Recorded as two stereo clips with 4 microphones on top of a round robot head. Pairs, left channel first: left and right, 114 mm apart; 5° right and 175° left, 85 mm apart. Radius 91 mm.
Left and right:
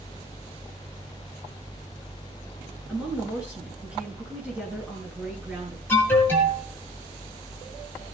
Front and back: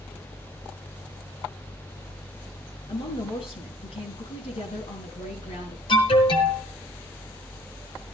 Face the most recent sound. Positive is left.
turn(degrees=15)